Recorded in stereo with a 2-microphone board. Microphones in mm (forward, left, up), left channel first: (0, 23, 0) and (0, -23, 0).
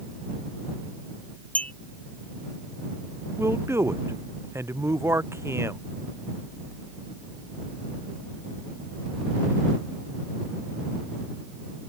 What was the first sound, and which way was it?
A clink, 30° left (ahead or behind).